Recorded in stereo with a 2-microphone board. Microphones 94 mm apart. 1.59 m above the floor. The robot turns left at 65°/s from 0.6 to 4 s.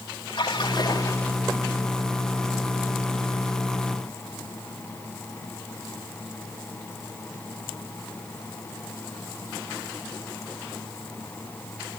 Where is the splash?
65° left, 4 m; by 1.3 s 20° left, 4 m.